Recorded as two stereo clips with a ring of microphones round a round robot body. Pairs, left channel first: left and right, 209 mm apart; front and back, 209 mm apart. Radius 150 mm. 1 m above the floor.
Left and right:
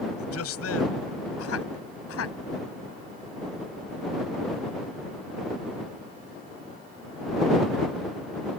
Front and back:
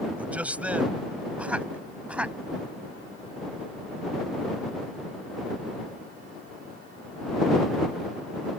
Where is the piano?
No piano in this recording.